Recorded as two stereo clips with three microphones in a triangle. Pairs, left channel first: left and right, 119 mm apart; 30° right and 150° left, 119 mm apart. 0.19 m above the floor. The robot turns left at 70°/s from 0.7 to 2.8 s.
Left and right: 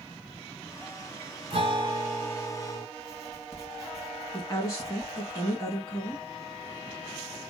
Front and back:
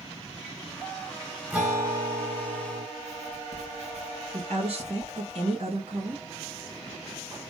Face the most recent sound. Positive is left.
turn(degrees=145)